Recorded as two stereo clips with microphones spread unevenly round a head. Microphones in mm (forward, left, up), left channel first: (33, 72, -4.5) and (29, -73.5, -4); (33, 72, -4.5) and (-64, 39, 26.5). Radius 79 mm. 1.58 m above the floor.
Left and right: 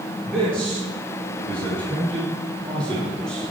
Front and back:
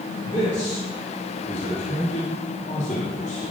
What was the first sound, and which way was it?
A man speaking, 45° right.